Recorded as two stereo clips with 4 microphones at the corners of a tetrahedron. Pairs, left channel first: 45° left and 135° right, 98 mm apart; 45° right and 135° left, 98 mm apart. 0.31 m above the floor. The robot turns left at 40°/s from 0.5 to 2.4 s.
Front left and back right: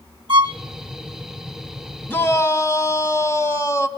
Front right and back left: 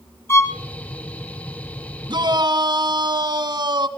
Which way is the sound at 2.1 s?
115° left.